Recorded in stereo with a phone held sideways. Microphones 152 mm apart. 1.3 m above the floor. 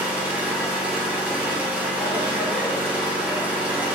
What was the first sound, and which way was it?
An engine running, 10° right (ahead or behind).